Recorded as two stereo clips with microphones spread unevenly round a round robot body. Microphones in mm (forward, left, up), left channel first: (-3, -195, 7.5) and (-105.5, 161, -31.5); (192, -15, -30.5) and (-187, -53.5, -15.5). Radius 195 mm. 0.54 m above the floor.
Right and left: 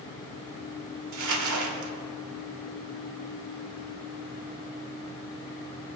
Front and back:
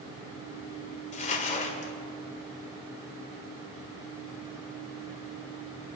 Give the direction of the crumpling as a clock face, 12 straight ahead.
10 o'clock.